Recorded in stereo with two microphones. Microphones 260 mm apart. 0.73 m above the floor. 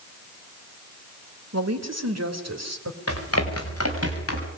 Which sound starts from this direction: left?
Running footsteps, at 3.1 s.